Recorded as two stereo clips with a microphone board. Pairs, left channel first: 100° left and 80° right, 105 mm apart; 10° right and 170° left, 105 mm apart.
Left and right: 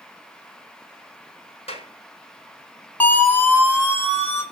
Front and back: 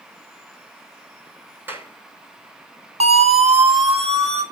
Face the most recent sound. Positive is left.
turn(degrees=165)